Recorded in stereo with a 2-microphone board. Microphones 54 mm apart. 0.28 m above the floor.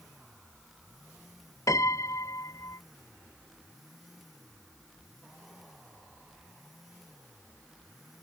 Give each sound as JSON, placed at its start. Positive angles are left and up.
{"t": 1.7, "sound": "a piano", "side_deg": 80}